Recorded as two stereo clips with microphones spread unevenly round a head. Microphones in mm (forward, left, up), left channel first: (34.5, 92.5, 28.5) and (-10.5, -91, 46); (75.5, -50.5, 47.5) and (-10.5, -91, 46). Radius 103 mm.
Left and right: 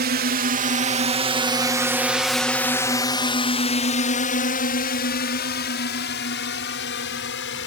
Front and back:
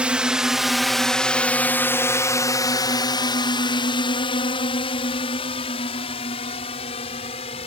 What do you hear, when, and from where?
0.0 s a drone: 80° right; by 7.7 s 55° left